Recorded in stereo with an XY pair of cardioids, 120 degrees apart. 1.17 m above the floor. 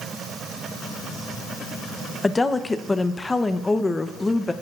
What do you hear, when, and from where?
2.2 s a woman speaking: 15° left, 0.7 m